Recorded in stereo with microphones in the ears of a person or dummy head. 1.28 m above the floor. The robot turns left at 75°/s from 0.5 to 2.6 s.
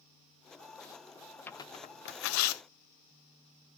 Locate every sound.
1.5 s tearing paper: 10° left (ahead or behind), 0.9 m; by 2.6 s 75° left (ahead or behind), 0.9 m